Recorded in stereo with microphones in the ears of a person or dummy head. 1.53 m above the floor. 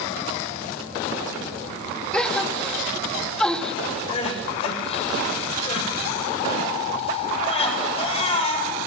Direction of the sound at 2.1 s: 5° left (ahead or behind).